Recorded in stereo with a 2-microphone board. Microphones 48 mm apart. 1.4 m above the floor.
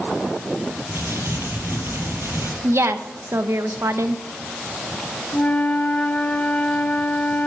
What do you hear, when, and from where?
0.9 s crumpling: 60° right (ahead or behind), 6.5 m
2.6 s a woman speaking: 70° right (ahead or behind), 1.0 m
5.3 s a flute: 30° left (ahead or behind), 1.5 m